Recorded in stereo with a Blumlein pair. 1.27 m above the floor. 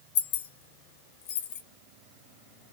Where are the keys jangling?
55° left, 0.6 m.